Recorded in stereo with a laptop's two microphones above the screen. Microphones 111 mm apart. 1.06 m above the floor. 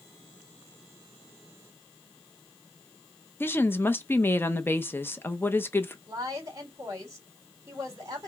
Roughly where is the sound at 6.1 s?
Right.